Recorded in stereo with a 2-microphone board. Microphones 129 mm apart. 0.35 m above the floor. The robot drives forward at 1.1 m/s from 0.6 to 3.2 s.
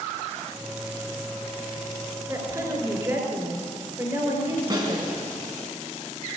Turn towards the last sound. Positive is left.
turn(degrees=-35)  # may be behind; listen again after turning